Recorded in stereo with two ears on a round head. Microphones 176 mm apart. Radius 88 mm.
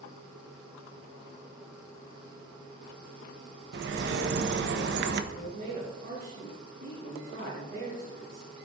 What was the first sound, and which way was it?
A bird, 60° right (ahead or behind).